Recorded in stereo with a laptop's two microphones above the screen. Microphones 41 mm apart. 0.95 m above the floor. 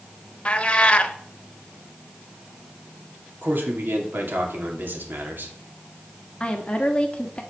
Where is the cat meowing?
25° left (ahead or behind), 0.7 m.